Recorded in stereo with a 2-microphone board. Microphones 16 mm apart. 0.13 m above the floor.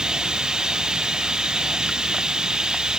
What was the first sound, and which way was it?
Running water, 65° right (ahead or behind).